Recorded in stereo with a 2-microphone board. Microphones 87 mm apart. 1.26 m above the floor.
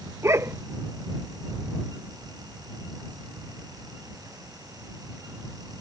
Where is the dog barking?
30° right (ahead or behind).